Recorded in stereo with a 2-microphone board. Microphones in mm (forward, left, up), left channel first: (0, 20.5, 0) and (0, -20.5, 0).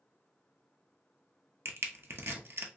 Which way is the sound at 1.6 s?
65° right (ahead or behind).